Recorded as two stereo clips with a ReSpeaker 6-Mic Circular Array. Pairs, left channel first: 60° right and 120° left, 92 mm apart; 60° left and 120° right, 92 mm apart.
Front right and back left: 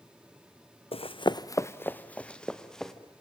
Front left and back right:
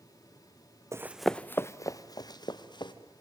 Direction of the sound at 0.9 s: 60° right.